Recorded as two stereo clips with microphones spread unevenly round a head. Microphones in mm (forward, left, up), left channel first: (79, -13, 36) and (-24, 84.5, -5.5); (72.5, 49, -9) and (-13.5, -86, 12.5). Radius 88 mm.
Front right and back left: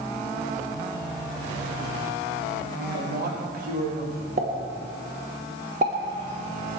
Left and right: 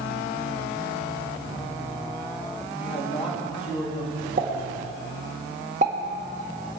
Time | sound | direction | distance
2.8 | a man speaking | 130° left | 3 m
4.4 | a pop | 175° right | 1.7 m